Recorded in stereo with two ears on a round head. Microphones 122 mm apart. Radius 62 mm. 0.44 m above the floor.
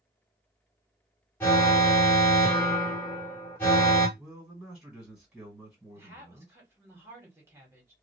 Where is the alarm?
15° left (ahead or behind), 1.7 m.